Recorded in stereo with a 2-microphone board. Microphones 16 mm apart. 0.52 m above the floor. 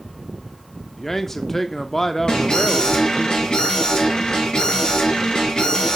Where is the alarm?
55° left (ahead or behind), 5 m.